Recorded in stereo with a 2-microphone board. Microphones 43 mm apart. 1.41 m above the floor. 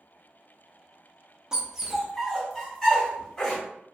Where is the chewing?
No chewing in this recording.